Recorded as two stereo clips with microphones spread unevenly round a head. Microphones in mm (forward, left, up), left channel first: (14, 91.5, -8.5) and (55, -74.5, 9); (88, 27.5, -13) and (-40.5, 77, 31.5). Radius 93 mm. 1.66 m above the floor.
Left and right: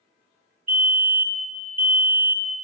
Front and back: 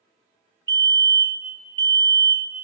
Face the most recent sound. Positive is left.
turn(degrees=-145)